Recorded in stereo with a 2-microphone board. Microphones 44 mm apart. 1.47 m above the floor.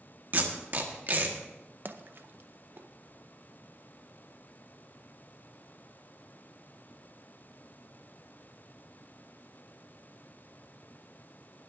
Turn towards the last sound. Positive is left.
turn(degrees=-50)  # may be behind; listen again after turning